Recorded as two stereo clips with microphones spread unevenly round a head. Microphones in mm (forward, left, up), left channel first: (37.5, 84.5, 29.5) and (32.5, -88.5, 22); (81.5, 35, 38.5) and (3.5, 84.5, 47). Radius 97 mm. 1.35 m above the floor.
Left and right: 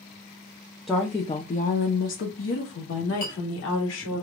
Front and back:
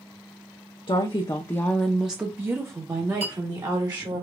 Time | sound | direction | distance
0.9 | a woman speaking | straight ahead | 0.7 m
3.2 | a clink | 140° left | 2.5 m